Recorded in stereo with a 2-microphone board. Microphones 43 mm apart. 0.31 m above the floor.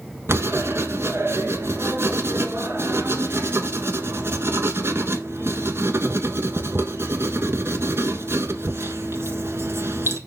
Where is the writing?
65° right (ahead or behind), 1.3 m.